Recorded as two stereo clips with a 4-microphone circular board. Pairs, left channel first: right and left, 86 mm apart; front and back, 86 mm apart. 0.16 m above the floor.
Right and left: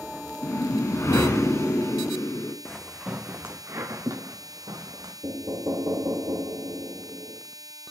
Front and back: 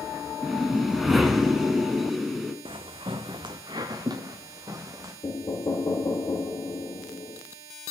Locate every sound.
0.4 s a whoosh: 95° right, 0.9 m
2.6 s footsteps: 170° right, 0.7 m; by 5.1 s 130° left, 2 m
5.2 s knocking: 40° left, 2 m